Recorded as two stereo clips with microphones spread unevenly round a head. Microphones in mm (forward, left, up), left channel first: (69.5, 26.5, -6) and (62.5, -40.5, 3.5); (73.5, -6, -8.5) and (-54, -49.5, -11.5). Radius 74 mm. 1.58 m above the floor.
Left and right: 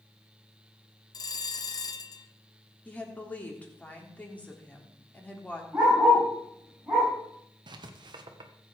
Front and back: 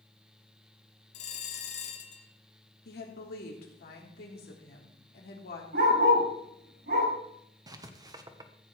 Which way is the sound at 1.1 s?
55° left.